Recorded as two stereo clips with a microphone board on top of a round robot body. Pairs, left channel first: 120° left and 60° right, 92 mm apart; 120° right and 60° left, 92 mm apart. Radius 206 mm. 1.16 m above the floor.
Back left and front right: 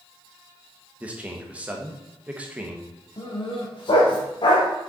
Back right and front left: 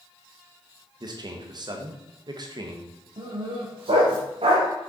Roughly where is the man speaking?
Ahead.